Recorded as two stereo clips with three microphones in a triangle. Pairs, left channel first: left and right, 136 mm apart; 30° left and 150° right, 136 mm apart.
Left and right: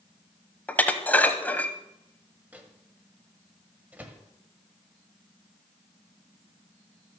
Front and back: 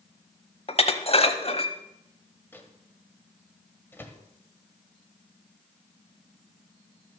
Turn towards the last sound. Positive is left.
turn(degrees=-25)